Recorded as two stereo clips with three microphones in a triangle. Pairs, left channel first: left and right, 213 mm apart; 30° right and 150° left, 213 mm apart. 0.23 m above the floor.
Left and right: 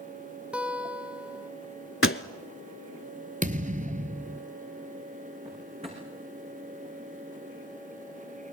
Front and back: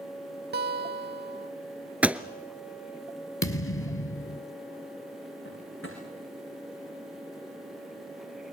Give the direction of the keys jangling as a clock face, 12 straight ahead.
I don't hear keys jangling.